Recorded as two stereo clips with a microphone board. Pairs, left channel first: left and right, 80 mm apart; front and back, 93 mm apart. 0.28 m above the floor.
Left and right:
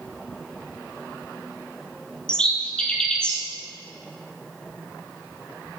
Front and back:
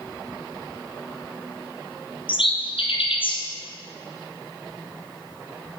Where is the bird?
10° left, 1.4 m.